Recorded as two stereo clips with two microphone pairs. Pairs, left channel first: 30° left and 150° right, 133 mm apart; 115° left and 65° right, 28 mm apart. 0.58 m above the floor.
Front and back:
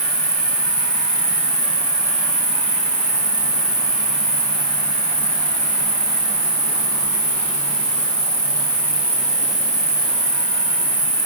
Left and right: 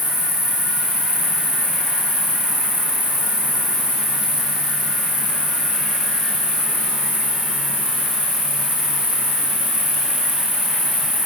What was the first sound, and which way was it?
An insect, 60° right.